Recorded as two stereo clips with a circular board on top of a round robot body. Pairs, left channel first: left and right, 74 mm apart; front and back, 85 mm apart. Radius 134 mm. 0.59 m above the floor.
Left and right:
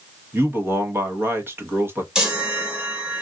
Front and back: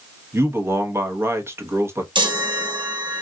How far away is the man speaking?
About 1.1 m.